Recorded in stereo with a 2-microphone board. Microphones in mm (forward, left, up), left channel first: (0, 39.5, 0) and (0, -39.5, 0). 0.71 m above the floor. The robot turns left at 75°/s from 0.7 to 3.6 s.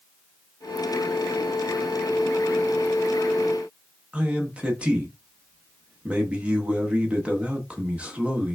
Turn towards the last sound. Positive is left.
turn(degrees=-20)  # may be behind; listen again after turning